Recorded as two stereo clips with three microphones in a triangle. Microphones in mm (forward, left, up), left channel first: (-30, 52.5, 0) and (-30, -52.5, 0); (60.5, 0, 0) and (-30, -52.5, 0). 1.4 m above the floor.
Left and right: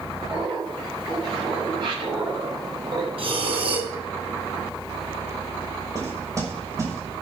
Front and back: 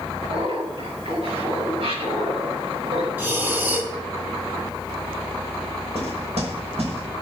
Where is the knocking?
150° right, 5.5 m.